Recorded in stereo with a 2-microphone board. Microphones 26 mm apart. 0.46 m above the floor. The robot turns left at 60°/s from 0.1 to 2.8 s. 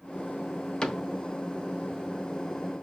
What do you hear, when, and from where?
0.8 s a cupboard door: 30° left (ahead or behind), 0.5 m